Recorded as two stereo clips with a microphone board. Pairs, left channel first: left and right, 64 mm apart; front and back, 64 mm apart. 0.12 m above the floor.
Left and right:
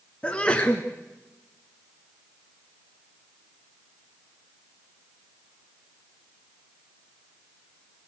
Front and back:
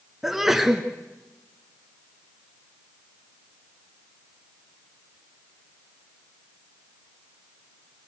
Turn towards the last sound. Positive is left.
turn(degrees=105)